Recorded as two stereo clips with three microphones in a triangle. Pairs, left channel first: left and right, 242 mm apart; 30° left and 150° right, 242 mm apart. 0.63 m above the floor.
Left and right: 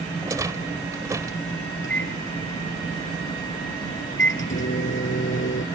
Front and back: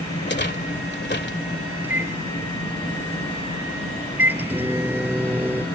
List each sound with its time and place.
0.2 s a rattle: 15° right
1.8 s a microwave: 130° left